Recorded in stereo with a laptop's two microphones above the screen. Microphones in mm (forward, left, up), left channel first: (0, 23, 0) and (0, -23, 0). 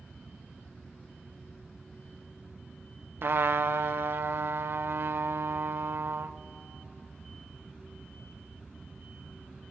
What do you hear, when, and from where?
3.2 s a trumpet: 60° right (ahead or behind), 0.6 m